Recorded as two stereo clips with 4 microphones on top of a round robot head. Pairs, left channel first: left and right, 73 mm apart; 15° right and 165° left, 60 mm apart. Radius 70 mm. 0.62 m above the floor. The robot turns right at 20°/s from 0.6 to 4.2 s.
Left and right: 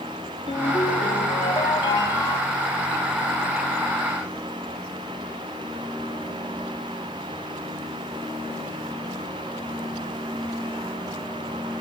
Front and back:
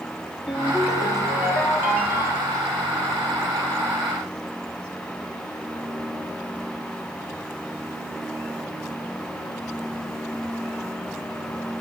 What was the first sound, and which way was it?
A ringtone, 75° left.